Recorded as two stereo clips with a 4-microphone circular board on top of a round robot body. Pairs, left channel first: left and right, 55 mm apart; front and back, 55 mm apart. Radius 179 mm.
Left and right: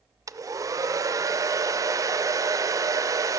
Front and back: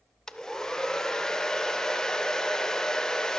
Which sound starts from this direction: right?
A hair dryer, at 0.3 s.